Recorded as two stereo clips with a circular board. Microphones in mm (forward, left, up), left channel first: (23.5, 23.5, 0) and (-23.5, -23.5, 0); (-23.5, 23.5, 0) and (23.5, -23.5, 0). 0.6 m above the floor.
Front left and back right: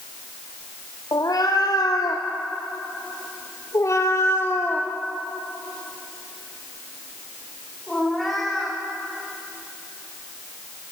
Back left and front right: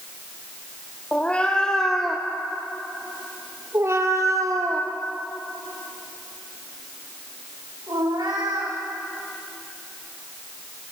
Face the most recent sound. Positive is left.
turn(degrees=-45)